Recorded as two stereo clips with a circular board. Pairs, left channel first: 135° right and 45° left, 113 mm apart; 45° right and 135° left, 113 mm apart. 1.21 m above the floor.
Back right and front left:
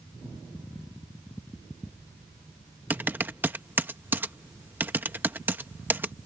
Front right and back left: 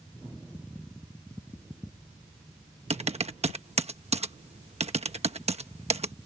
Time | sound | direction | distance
2.9 | typing on a keyboard | 115° left | ?